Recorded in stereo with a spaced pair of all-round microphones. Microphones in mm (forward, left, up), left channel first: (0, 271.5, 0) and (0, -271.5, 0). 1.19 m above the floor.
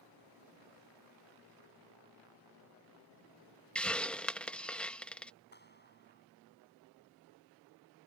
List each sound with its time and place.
3.8 s a hiss: centre (ahead or behind)
5.5 s a clap: 20° left (ahead or behind)